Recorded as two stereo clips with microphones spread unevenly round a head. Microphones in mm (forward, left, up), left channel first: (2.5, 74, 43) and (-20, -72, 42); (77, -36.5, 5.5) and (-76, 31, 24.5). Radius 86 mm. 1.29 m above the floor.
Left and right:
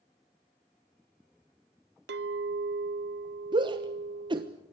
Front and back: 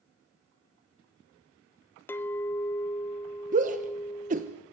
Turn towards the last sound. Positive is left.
turn(degrees=-160)